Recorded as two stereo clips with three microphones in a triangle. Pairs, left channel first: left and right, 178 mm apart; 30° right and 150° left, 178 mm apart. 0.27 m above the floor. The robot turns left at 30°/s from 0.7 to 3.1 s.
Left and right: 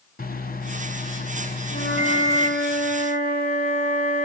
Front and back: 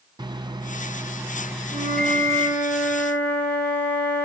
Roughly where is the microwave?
Left.